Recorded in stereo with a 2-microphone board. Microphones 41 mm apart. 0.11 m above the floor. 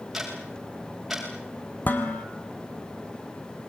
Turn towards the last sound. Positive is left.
turn(degrees=45)  # may be behind; listen again after turning